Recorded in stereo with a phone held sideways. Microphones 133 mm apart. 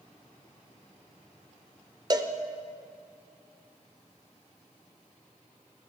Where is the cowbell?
30° right (ahead or behind), 0.6 m.